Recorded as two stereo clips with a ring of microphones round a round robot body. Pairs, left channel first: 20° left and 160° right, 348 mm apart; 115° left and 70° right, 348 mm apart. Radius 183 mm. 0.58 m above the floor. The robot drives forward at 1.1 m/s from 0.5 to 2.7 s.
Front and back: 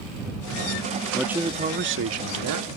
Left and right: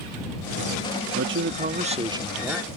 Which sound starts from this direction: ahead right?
A man speaking, at 1.1 s.